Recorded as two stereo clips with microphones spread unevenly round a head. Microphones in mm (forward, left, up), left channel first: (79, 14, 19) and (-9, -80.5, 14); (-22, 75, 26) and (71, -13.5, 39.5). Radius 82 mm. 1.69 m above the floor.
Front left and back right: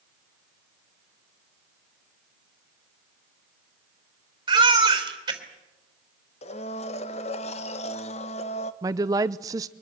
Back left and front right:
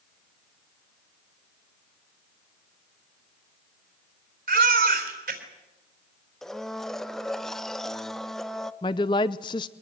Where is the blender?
45° left, 1.1 m.